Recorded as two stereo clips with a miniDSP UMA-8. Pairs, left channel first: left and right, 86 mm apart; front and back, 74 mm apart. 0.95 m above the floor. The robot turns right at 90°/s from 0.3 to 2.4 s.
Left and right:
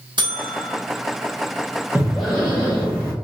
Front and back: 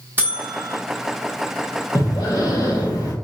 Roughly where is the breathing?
Ahead right.